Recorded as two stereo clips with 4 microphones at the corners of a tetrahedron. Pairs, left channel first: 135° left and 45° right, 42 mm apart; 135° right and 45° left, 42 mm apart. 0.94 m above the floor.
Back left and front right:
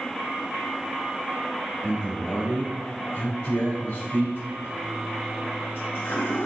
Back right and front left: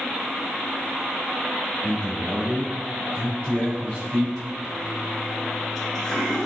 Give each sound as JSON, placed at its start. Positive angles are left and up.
{"t": 1.8, "sound": "a man speaking", "azimuth_deg": 165, "distance_m": 2.5}
{"t": 4.6, "sound": "a toilet flushing", "azimuth_deg": 145, "distance_m": 1.6}